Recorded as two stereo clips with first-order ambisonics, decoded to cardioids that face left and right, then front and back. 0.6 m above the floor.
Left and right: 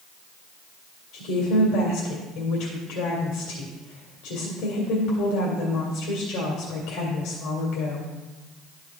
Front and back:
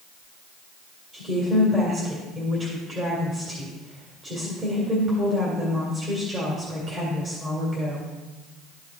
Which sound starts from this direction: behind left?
A woman speaking, at 1.1 s.